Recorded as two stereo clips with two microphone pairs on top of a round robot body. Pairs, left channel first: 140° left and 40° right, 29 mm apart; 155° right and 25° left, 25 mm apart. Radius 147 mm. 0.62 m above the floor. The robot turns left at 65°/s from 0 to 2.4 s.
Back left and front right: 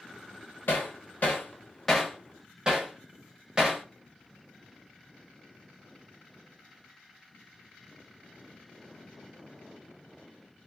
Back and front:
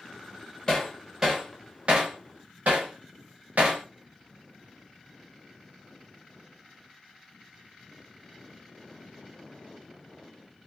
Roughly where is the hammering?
Behind left.